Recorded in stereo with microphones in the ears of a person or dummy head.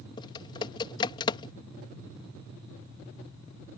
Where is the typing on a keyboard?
30° left (ahead or behind).